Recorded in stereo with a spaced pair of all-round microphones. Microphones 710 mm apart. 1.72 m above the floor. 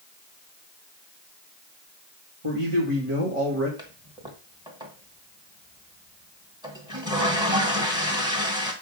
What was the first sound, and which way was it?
A man speaking, 45° right (ahead or behind).